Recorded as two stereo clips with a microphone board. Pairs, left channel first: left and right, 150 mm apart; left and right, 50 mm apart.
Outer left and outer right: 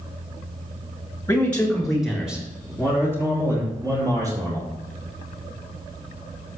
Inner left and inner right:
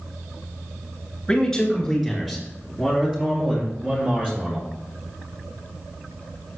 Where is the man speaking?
15° left (ahead or behind), 3 m; by 4.7 s 25° right (ahead or behind), 6 m.